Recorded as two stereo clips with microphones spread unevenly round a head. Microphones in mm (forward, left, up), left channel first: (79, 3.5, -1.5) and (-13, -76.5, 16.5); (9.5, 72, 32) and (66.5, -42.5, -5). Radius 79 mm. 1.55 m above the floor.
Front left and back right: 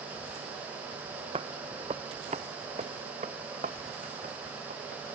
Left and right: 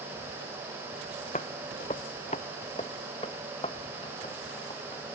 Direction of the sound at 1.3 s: 165° left.